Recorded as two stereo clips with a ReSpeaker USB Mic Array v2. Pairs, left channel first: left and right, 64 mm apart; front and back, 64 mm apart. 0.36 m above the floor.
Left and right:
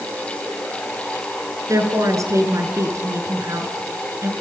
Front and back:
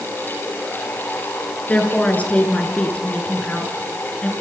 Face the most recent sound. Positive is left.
turn(degrees=-65)